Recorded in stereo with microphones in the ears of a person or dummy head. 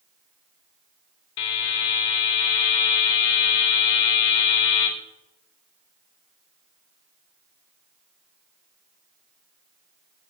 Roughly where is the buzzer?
Left.